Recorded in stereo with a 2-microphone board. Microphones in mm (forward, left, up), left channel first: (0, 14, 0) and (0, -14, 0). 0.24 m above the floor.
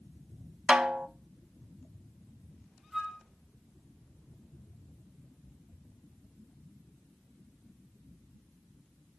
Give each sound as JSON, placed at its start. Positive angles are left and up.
{"t": 0.7, "sound": "a snare drum", "side_deg": -30, "distance_m": 0.6}
{"t": 2.9, "sound": "a flute", "side_deg": -10, "distance_m": 1.8}